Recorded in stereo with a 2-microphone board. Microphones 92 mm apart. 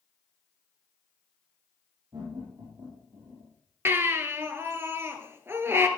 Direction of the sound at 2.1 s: 50° right (ahead or behind).